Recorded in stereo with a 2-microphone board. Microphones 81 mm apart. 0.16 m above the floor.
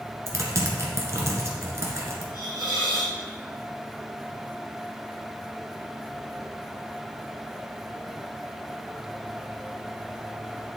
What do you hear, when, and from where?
0.3 s typing on a keyboard: 35° right (ahead or behind), 1.6 m
2.3 s a hiss: 65° left (ahead or behind), 2.5 m